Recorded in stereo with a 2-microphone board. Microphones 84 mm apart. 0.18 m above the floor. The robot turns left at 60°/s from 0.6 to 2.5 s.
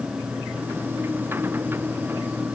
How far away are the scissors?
No scissors in this recording.